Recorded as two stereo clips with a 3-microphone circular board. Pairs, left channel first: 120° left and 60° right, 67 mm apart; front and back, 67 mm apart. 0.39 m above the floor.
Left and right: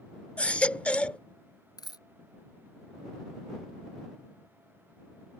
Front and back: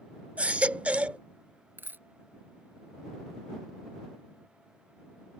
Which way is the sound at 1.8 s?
120° left.